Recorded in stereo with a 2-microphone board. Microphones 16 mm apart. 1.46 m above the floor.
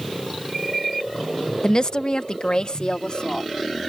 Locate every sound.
1.6 s a woman speaking: 45° left (ahead or behind); by 3.5 s 60° left (ahead or behind)